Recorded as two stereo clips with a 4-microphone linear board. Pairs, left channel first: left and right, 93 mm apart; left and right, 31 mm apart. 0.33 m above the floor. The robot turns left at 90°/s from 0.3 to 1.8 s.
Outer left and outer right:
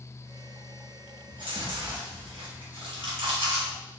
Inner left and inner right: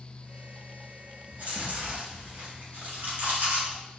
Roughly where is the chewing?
Right.